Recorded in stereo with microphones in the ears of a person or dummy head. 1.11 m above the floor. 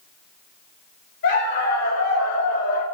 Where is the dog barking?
70° left (ahead or behind), 5.5 m.